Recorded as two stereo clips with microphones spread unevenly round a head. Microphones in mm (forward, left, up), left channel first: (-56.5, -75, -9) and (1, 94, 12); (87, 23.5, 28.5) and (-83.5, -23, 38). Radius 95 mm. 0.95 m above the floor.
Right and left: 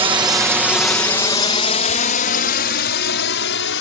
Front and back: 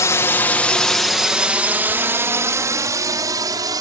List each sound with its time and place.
0.0 s a drone: 50° left; by 3.8 s 95° right